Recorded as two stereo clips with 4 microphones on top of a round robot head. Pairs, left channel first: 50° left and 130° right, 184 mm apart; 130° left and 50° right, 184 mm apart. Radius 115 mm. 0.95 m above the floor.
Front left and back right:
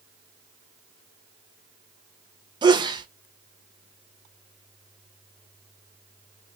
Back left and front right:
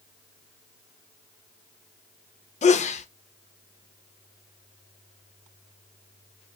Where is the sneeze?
170° left, 0.5 m.